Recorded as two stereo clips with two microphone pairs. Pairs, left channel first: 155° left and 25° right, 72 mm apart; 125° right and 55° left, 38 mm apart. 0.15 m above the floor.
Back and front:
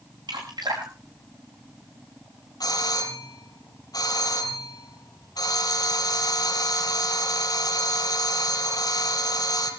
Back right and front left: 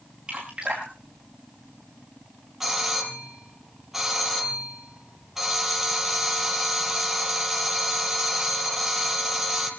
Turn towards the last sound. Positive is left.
turn(degrees=135)